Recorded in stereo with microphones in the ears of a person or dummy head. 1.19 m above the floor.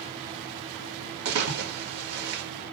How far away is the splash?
About 1.5 m.